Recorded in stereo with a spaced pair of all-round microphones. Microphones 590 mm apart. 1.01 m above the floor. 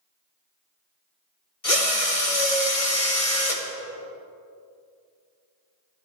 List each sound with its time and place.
1.6 s a drill: 70° left (ahead or behind), 1.8 m